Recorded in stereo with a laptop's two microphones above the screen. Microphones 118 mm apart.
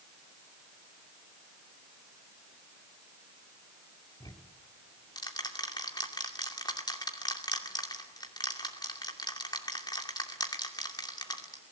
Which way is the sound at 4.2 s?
35° left (ahead or behind).